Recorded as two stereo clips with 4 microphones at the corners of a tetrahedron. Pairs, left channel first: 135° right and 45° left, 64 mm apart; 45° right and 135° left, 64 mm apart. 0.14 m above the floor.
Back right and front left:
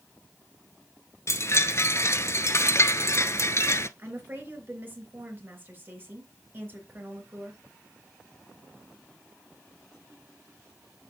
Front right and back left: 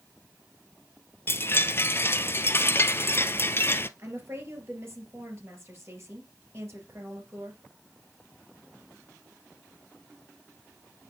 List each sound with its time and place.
1.3 s a chime: 95° right, 0.5 m
4.0 s a woman speaking: 95° left, 3 m